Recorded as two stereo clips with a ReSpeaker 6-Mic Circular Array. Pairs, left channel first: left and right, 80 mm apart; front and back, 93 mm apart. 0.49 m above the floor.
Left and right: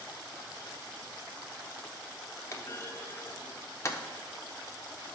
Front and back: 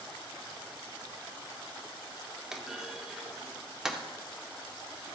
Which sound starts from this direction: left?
A clunk, at 2.5 s.